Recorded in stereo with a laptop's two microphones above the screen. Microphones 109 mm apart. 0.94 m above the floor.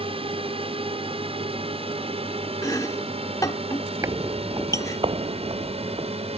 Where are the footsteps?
30° right (ahead or behind); by 6.1 s 65° right (ahead or behind).